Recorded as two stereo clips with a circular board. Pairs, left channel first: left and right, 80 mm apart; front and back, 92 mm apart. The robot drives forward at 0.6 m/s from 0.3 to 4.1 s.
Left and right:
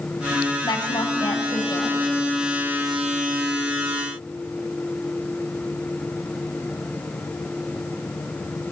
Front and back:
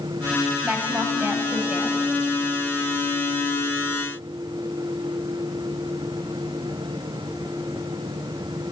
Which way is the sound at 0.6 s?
105° left.